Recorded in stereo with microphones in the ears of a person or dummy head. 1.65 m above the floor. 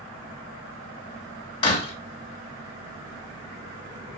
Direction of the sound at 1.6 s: 35° left (ahead or behind).